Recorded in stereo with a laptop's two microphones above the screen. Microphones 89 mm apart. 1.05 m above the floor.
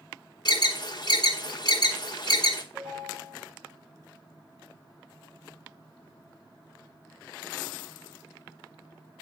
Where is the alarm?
50° left (ahead or behind), 0.8 m.